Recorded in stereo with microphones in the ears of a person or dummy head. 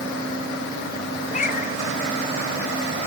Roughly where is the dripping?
I don't hear dripping.